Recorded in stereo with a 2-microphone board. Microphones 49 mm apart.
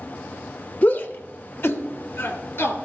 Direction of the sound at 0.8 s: 30° left (ahead or behind).